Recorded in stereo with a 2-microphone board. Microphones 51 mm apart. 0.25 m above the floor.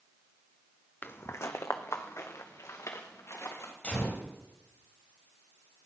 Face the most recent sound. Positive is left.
turn(degrees=25)  # may be behind; listen again after turning